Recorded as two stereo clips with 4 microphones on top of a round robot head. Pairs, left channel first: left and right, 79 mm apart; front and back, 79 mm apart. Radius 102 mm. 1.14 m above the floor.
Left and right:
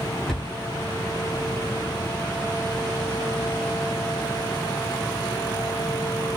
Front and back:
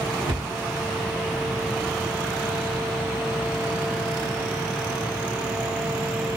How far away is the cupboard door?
About 0.9 m.